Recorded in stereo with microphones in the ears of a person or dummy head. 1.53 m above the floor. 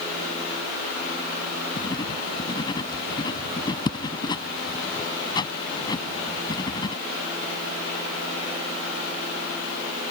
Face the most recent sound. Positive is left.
turn(degrees=25)  # may be behind; listen again after turning